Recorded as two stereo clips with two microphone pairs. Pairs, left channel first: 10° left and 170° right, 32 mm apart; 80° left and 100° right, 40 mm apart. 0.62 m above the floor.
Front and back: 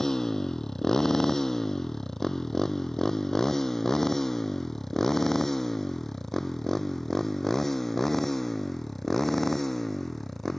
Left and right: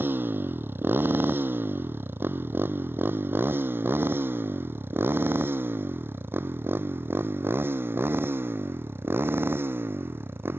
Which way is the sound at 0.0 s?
65° right.